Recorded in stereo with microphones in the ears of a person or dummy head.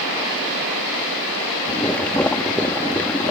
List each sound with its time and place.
1.7 s boiling: 10° left (ahead or behind)